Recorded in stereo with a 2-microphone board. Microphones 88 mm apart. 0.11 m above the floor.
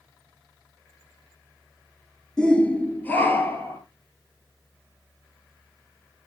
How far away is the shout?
About 1.2 m.